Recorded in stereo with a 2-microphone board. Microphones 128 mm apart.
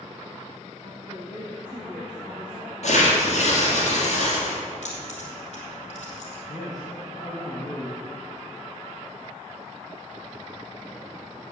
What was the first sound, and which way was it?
A woman speaking, 15° right (ahead or behind).